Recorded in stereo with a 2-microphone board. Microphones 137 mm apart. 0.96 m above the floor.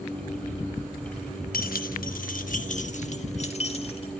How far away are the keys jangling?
About 1.1 m.